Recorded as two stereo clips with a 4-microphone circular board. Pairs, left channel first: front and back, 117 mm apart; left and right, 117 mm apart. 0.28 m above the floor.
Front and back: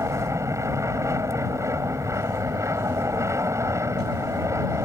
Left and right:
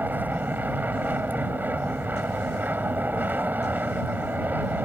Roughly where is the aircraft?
Behind right.